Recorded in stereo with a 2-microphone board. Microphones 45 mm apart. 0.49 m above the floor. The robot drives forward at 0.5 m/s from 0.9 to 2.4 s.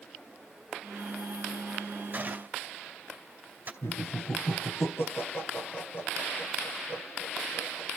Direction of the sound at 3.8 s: 60° left (ahead or behind).